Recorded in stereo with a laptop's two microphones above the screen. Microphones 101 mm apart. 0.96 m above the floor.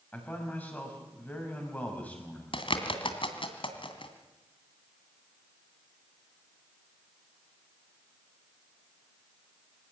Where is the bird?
60° left (ahead or behind), 2 m.